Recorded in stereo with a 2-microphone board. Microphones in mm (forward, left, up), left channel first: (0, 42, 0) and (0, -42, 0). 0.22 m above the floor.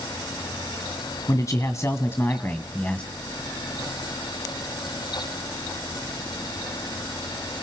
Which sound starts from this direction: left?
A man speaking, at 1.3 s.